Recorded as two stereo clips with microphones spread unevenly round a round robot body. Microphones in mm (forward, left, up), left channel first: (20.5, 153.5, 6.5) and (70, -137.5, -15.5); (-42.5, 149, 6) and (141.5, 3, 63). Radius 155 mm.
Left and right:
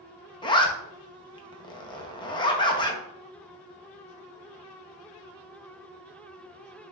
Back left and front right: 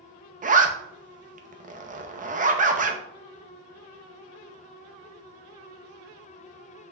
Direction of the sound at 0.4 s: 25° left.